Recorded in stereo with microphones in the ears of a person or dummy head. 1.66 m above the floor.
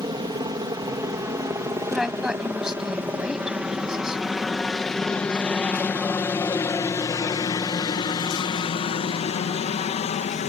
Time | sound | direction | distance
0.0 | a helicopter | 25° right (ahead or behind) | ?
1.9 | a woman speaking | 5° right (ahead or behind) | ?